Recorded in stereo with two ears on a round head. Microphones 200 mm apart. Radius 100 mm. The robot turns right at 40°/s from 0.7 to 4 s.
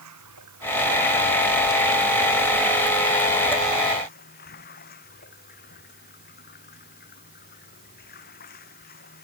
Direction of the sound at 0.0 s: 90° right.